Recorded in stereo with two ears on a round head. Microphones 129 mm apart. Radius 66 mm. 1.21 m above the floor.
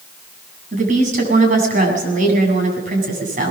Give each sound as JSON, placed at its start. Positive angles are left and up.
{"t": 0.7, "sound": "a woman speaking", "side_deg": -55, "distance_m": 7.5}